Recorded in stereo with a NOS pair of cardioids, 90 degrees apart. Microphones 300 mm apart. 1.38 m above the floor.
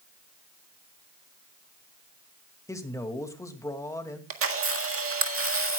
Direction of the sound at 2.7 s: 10° left.